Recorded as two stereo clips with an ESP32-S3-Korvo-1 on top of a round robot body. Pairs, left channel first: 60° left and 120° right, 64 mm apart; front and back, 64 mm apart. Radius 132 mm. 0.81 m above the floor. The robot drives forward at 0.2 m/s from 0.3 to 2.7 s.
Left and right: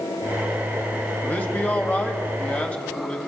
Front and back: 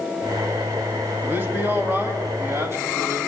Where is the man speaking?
125° left, 2 m; by 3.2 s 130° left, 2.5 m.